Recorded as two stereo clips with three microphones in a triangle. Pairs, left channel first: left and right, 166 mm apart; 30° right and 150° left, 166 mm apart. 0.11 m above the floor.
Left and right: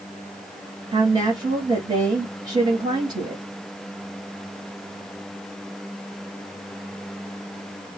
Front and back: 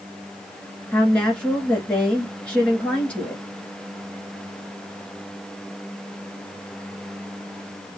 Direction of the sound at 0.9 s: 105° right.